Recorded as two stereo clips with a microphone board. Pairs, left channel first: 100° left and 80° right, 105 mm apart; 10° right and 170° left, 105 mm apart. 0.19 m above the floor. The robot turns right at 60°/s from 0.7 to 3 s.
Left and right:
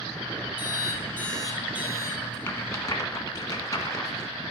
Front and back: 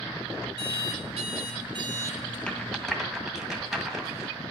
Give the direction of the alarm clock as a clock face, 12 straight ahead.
7 o'clock.